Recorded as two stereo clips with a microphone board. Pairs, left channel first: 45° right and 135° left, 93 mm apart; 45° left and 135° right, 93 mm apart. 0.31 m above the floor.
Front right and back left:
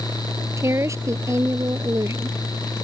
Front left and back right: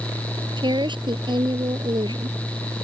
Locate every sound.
0.6 s a woman speaking: 165° right